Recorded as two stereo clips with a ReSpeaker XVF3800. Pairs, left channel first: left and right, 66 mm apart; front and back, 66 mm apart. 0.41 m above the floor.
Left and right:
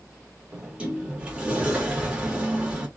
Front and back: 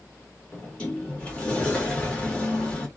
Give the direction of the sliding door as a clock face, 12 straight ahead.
1 o'clock.